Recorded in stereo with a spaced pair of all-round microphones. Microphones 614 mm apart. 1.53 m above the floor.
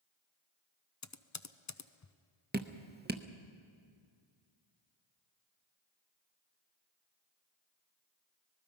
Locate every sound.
1.0 s typing on a keyboard: 30° left (ahead or behind), 0.5 m
2.5 s dripping: 15° right (ahead or behind), 0.8 m